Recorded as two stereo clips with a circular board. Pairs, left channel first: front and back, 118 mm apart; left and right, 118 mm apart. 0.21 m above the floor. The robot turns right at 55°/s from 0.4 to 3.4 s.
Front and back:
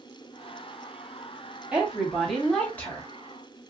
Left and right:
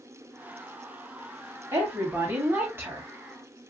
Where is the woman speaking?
115° right, 1.4 m; by 3.1 s 40° right, 1.4 m.